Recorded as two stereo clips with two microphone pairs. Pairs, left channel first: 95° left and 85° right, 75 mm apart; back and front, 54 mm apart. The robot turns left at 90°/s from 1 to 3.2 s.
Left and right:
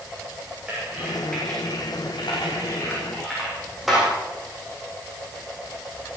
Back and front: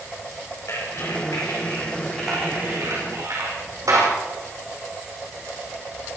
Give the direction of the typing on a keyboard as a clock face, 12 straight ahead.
5 o'clock.